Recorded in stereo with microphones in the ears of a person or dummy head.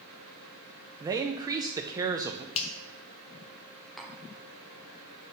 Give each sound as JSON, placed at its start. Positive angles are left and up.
{"t": 1.0, "sound": "a man speaking", "side_deg": -20, "distance_m": 0.6}
{"t": 2.5, "sound": "a finger snap", "side_deg": 35, "distance_m": 0.6}
{"t": 4.0, "sound": "tapping", "side_deg": 0, "distance_m": 0.7}